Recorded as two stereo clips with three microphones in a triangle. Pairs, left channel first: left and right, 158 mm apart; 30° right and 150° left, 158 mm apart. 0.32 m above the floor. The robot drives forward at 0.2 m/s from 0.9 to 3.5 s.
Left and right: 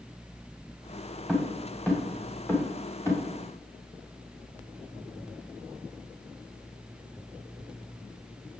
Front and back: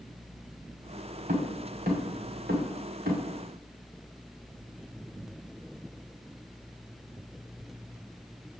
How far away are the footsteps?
About 2.5 m.